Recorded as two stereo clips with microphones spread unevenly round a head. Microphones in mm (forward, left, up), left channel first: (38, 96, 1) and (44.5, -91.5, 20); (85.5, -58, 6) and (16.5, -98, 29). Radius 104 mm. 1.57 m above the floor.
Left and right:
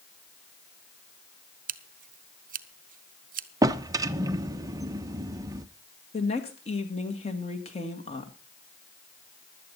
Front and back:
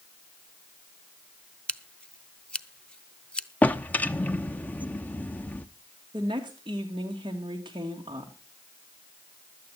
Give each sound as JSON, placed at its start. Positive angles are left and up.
{"t": 1.7, "sound": "scissors", "azimuth_deg": -45, "distance_m": 1.0}
{"t": 3.6, "sound": "a drawer", "azimuth_deg": -50, "distance_m": 0.7}
{"t": 6.1, "sound": "a woman speaking", "azimuth_deg": 155, "distance_m": 2.5}